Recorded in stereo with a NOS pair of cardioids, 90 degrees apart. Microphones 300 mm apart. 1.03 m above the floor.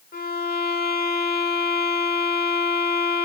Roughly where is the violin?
Ahead left.